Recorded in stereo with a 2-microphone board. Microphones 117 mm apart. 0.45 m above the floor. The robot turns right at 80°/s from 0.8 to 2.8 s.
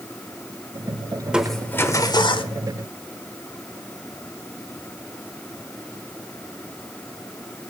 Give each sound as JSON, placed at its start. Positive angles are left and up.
{"t": 1.2, "sound": "crushing", "azimuth_deg": -15, "distance_m": 1.1}